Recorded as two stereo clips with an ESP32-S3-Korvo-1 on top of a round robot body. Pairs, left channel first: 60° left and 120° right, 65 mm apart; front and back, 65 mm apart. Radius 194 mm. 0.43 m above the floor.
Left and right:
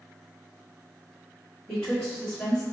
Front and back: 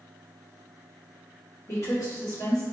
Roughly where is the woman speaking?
Ahead.